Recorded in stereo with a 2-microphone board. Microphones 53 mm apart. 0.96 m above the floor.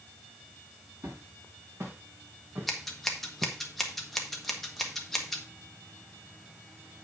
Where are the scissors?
Centre (ahead or behind), 1.5 m.